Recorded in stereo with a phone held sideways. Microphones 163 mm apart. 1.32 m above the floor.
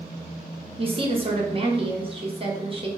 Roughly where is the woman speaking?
Right.